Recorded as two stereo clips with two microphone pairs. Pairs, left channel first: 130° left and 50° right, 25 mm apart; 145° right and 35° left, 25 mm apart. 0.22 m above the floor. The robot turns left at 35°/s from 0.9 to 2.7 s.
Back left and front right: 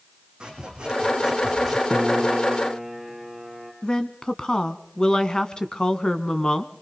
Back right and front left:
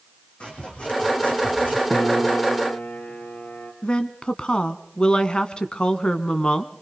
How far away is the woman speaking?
About 1.7 m.